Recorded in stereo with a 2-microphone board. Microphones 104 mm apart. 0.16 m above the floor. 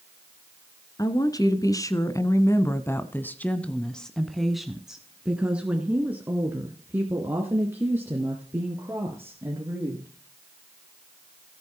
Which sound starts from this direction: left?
A woman speaking, at 1.0 s.